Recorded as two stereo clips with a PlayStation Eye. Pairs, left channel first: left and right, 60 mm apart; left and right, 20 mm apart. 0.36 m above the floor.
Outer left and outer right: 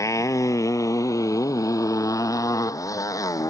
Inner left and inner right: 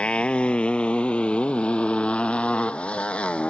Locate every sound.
0.0 s a motorcycle: 60° left (ahead or behind); by 3.5 s 70° left (ahead or behind)